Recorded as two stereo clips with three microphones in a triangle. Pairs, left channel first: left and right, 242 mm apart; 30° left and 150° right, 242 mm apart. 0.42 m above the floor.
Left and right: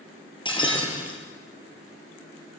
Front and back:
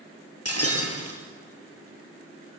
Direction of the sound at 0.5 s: 20° left.